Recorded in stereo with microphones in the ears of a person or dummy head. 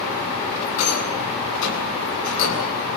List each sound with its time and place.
0.8 s a rattle: 85° left, 9 m